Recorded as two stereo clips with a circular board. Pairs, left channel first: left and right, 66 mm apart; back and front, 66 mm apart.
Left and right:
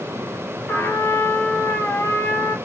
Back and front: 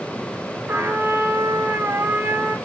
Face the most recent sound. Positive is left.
turn(degrees=45)